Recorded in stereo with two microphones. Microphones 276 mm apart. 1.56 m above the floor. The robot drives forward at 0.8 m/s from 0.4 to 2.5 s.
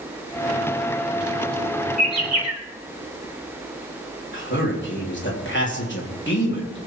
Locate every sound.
2.0 s a bird: 65° right (ahead or behind), 3 m; by 2.6 s 70° right (ahead or behind), 2.5 m
4.3 s a man speaking: 40° left (ahead or behind), 3.5 m